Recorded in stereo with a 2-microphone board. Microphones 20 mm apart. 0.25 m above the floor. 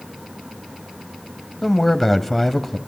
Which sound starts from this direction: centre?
A man speaking, at 1.6 s.